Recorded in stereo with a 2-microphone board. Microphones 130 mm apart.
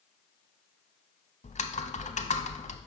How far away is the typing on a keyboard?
About 0.6 m.